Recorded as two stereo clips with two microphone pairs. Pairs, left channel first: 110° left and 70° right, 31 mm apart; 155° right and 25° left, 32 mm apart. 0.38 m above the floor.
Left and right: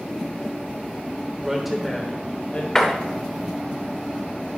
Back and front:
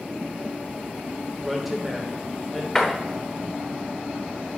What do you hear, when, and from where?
1.4 s a woman speaking: 50° right, 0.8 m; by 2.6 s 115° left, 1.1 m
2.8 s a door slam: 130° left, 1.0 m